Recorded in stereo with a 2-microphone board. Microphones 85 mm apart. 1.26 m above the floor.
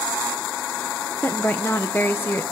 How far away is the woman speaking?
About 1.0 m.